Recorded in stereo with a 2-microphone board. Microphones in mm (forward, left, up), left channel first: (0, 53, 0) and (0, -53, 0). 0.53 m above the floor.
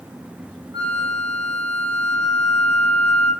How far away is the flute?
About 1.0 m.